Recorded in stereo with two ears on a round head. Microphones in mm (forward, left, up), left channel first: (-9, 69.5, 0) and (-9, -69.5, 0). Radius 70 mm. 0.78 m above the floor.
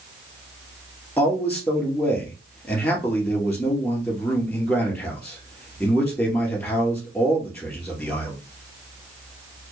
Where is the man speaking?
15° left (ahead or behind), 2.5 m.